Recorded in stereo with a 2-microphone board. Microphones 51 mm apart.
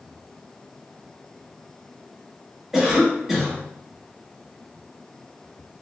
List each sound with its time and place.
2.7 s a cough: 10° right (ahead or behind), 1.1 m